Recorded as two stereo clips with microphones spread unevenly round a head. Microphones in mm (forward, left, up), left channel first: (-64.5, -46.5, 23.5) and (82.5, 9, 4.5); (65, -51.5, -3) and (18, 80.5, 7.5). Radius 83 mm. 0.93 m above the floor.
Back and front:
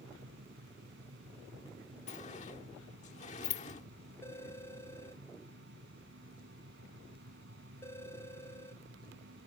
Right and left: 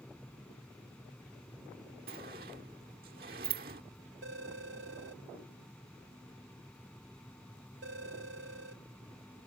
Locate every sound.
0.0 s a fan: 15° left
2.1 s a sliding door: 150° left
4.2 s a phone ringing: 125° left